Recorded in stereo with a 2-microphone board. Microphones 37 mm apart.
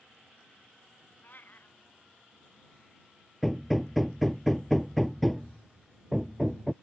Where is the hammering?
Centre (ahead or behind).